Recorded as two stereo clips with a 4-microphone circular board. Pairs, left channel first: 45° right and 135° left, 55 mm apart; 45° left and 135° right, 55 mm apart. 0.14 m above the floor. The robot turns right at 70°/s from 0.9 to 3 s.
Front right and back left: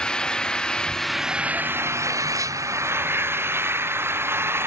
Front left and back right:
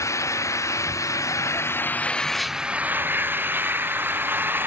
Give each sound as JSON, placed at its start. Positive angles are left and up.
{"t": 0.0, "sound": "an engine running", "azimuth_deg": 30}